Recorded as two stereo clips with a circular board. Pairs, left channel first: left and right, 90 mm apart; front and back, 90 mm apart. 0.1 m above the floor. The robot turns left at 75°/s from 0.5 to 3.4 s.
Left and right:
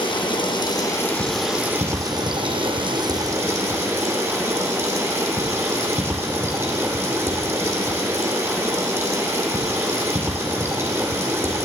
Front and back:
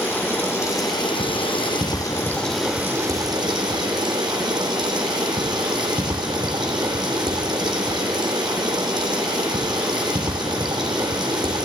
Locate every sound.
0.0 s running water: 65° left, 2.5 m; by 11.7 s 150° right, 2.5 m